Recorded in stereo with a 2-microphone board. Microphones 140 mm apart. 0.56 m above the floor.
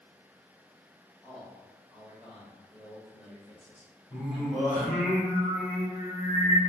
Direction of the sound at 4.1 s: 10° left (ahead or behind).